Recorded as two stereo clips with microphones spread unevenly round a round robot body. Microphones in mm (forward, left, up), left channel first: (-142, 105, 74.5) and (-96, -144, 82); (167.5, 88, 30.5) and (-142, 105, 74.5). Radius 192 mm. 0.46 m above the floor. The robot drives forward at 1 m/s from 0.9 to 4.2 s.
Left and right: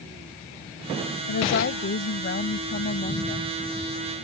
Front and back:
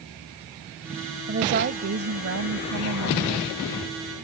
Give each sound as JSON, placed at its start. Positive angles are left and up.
{"t": 1.3, "sound": "a woman speaking", "azimuth_deg": 125}